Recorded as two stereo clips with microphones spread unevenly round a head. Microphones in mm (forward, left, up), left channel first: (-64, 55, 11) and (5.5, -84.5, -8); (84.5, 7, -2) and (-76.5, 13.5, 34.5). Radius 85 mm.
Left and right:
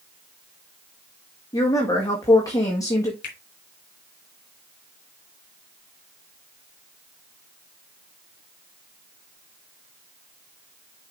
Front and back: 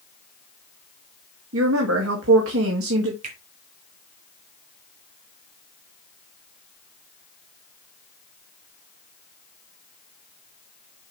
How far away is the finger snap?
About 3 m.